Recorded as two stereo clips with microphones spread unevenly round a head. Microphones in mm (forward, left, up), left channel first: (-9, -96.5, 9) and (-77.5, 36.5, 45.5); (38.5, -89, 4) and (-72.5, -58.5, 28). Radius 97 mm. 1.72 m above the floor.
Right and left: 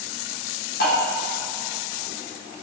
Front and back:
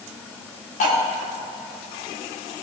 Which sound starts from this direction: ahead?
Cutlery clinking, at 0.8 s.